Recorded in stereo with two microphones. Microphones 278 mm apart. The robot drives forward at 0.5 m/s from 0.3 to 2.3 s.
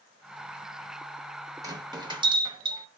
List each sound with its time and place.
1.6 s a bell: 15° right (ahead or behind), 1.0 m